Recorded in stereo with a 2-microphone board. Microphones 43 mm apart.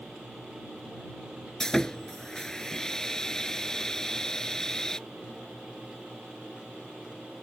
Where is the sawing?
15° left (ahead or behind).